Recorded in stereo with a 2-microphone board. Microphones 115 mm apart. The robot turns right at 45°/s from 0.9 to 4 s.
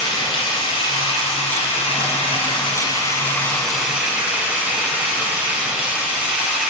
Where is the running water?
55° left, 1.2 m; by 6.7 s 165° right, 1.2 m.